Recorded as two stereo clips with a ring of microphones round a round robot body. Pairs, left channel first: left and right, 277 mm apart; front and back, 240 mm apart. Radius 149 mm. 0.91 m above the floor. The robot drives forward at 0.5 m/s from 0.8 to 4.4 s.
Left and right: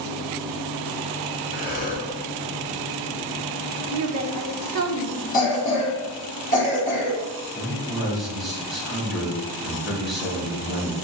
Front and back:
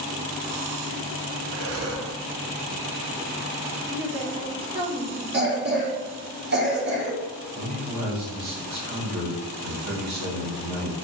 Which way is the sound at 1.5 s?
150° left.